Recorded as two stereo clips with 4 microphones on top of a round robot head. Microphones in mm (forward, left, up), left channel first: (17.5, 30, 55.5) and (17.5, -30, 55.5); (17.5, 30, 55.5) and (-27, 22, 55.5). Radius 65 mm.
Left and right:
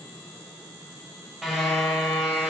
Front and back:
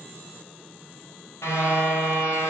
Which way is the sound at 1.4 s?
5° right.